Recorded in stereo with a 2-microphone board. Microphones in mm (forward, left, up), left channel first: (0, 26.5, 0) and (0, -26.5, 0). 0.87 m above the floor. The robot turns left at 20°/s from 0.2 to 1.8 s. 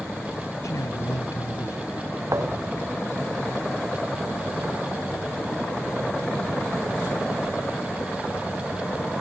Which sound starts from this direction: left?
A man speaking, at 0.6 s.